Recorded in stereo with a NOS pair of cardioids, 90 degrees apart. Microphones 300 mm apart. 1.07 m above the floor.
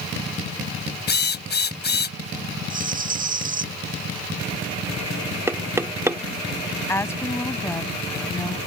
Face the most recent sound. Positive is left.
turn(degrees=10)